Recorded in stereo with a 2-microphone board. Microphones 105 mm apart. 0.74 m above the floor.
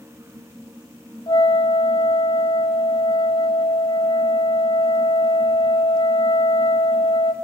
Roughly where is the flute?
Left.